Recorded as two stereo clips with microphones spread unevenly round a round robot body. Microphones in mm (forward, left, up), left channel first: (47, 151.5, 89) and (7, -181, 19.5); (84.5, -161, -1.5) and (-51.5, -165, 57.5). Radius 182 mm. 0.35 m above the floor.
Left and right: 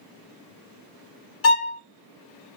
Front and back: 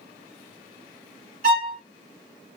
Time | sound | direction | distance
1.4 | a violin | 140° left | 0.7 m